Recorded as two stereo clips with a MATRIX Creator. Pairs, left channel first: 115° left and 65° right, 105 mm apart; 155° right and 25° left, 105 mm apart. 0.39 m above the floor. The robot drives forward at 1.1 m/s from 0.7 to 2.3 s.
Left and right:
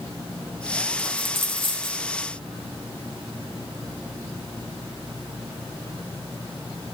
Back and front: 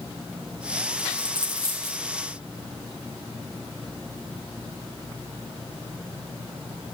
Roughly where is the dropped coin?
Ahead right.